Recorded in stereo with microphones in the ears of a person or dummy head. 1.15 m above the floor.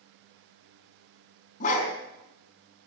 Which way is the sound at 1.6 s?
45° left (ahead or behind).